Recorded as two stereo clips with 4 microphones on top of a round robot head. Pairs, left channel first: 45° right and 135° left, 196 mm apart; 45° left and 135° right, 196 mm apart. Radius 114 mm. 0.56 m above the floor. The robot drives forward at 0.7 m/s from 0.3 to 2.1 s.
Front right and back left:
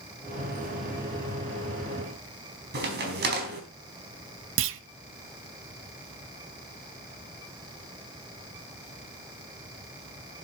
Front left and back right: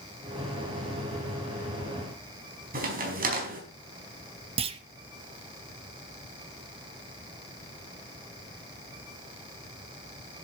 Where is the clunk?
160° left, 0.6 m.